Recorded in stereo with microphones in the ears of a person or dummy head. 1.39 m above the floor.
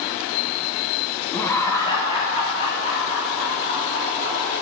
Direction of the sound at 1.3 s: 10° left (ahead or behind).